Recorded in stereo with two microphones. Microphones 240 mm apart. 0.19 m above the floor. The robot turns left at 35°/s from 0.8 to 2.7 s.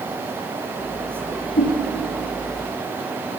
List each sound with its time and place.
1.6 s a whoosh: 40° left (ahead or behind), 3 m; by 1.7 s 45° left (ahead or behind), 3 m